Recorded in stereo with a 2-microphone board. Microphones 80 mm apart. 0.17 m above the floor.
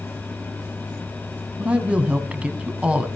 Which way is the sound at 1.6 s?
15° right (ahead or behind).